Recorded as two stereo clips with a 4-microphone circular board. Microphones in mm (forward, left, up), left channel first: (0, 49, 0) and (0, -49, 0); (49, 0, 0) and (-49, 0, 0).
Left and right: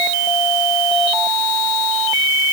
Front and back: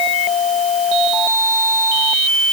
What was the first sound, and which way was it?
Only background noise.